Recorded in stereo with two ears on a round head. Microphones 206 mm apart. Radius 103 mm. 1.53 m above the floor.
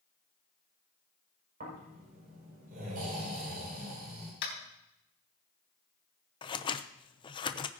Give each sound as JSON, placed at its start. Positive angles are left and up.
{"t": 1.6, "sound": "snoring", "side_deg": -40, "distance_m": 6.0}
{"t": 4.4, "sound": "tapping", "side_deg": 60, "distance_m": 4.0}
{"t": 6.4, "sound": "scissors", "side_deg": 20, "distance_m": 0.6}